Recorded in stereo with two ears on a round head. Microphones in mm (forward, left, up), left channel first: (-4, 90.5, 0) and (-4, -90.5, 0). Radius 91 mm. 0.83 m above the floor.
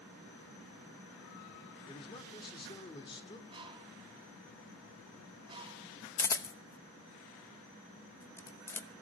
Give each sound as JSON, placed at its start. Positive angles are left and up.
{"t": 1.9, "sound": "a man speaking", "side_deg": 25, "distance_m": 2.5}
{"t": 3.5, "sound": "a bird", "side_deg": -25, "distance_m": 1.8}
{"t": 6.2, "sound": "a camera shutter", "side_deg": 15, "distance_m": 0.9}